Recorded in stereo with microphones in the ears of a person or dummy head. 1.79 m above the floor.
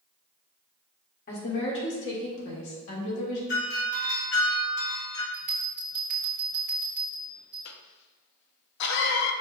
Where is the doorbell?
60° left (ahead or behind), 1.5 m.